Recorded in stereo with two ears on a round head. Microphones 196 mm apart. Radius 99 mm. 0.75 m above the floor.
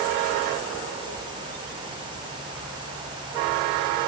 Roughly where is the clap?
No clap in this recording.